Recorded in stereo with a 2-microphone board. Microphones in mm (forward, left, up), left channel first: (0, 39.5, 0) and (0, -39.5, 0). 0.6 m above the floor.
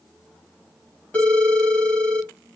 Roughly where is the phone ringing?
Centre.